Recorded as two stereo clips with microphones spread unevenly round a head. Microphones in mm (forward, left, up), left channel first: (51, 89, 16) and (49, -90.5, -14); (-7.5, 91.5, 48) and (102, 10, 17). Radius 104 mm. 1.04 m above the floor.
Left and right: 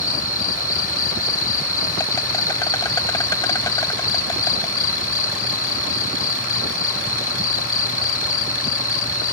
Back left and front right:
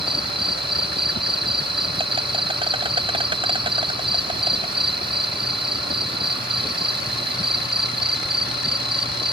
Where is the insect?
20° left.